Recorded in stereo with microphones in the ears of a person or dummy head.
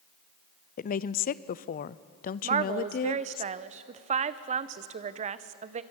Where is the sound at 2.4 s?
30° right (ahead or behind), 0.8 m.